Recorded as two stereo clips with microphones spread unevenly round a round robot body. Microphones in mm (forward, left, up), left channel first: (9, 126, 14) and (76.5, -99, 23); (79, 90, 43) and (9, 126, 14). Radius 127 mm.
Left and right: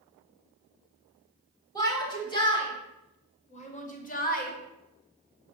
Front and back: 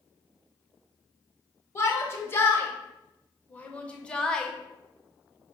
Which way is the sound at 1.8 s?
35° left.